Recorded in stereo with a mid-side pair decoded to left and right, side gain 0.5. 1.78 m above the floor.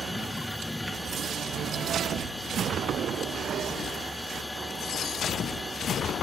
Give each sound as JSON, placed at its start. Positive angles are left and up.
{"t": 0.0, "sound": "a machine running", "azimuth_deg": 10}